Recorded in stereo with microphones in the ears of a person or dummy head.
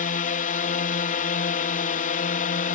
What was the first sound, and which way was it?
A drone, 40° left (ahead or behind).